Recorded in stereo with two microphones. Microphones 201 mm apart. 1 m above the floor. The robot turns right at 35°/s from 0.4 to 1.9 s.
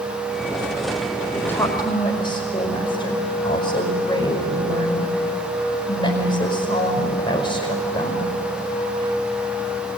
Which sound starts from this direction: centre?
A woman speaking, at 1.3 s.